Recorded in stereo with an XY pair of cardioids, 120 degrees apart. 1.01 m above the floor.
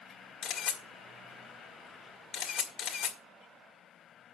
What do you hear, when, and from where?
0.4 s a camera shutter: 60° left, 2 m